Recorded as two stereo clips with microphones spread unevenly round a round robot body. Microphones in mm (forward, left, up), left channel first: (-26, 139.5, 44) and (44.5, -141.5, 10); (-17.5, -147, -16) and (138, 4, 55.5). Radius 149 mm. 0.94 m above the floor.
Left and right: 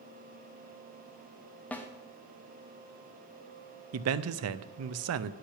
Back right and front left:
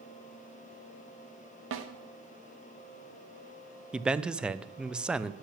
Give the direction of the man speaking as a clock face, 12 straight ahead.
2 o'clock.